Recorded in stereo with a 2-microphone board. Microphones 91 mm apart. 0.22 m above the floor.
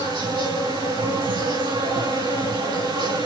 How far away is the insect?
About 5 m.